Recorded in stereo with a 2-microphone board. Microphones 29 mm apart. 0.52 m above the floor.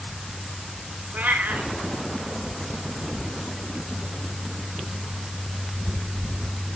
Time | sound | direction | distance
1.1 | a cat meowing | 70° right (ahead or behind) | 1.7 m